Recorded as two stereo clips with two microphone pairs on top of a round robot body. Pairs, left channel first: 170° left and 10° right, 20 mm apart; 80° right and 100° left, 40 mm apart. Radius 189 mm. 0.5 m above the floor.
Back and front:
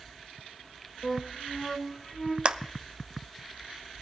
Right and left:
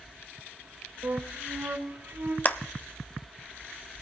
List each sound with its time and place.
1.0 s a flute: 95° left, 3 m
2.5 s a clap: 35° right, 1.1 m